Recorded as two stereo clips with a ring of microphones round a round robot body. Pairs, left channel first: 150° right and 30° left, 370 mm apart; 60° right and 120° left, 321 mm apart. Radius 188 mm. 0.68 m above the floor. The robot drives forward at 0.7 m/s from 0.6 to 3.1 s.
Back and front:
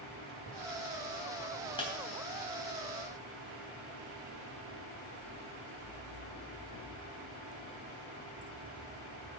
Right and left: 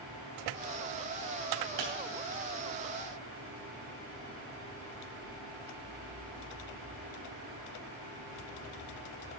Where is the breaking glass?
130° left, 3 m; by 1.9 s 135° left, 3 m.